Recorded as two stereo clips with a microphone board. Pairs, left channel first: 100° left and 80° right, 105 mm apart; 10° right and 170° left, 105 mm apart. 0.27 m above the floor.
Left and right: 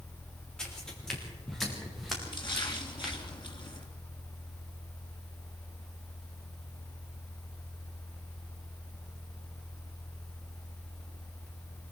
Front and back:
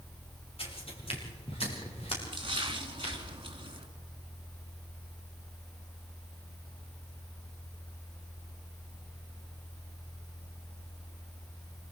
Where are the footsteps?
15° left, 6 m; by 3.1 s 10° left, 8 m.